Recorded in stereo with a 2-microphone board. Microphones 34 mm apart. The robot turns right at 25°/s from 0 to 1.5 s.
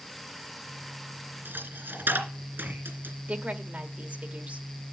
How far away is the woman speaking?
About 1.3 m.